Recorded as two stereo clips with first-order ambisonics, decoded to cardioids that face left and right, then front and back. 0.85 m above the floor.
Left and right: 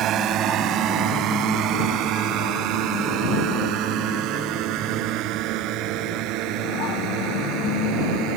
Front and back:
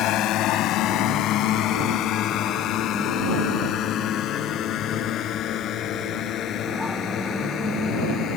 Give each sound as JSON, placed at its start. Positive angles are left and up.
{"t": 0.0, "sound": "a drone", "azimuth_deg": -40}